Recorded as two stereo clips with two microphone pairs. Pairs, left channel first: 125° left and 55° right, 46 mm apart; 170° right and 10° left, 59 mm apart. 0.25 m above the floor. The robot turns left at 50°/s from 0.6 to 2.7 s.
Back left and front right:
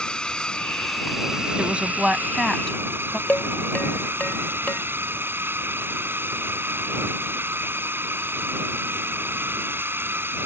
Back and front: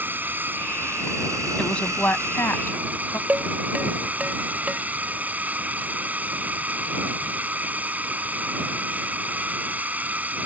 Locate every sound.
0.0 s a drone: 60° left; by 10.5 s 45° right
1.6 s a woman speaking: 100° right; by 3.2 s 155° right
3.3 s dishes clattering: 75° left